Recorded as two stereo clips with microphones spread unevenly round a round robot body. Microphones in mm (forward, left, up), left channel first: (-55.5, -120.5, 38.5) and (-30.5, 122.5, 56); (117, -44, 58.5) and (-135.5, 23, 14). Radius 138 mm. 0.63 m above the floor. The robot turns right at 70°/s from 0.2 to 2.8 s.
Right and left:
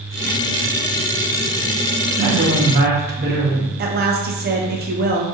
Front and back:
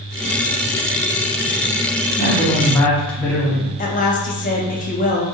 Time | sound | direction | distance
2.2 | a woman speaking | 40° left | 1.0 m
3.8 | a woman speaking | 45° left | 0.7 m